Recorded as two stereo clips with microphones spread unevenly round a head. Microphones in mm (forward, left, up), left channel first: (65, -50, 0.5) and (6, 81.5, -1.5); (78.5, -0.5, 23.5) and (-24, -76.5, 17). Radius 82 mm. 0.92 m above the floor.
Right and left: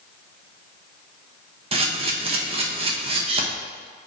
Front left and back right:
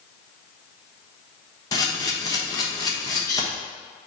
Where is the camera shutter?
95° left, 1.1 m.